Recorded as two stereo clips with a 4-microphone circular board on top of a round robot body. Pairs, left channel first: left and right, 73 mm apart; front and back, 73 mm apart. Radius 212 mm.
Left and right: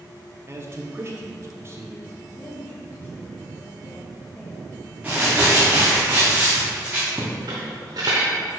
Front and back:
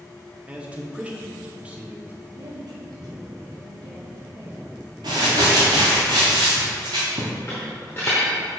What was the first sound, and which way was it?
A man speaking, 115° right.